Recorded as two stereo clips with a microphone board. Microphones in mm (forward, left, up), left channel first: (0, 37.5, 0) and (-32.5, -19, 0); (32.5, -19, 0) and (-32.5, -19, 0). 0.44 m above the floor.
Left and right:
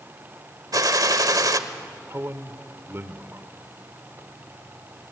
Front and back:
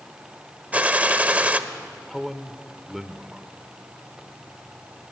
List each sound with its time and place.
0.7 s a gunshot: 115° right, 1.0 m
2.1 s a man speaking: 95° right, 1.1 m